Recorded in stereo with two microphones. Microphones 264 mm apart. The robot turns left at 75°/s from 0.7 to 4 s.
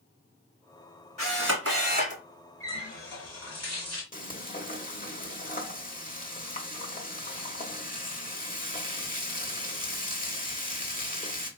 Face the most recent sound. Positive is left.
turn(degrees=30)  # may be behind; listen again after turning